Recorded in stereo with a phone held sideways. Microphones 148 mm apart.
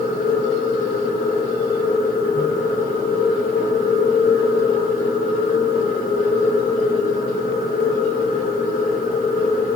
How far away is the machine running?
About 3 m.